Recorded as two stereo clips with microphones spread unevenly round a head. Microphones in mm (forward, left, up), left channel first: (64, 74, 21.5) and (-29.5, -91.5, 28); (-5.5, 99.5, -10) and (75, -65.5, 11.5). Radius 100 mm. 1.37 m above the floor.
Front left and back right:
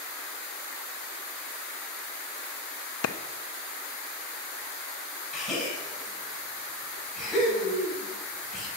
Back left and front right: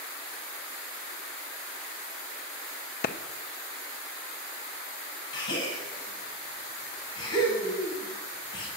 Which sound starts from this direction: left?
A clap, at 3.0 s.